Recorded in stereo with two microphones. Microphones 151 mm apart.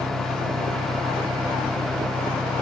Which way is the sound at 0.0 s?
90° right.